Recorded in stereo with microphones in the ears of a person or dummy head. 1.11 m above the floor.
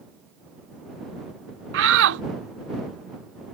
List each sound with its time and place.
1.7 s a shout: 75° right (ahead or behind)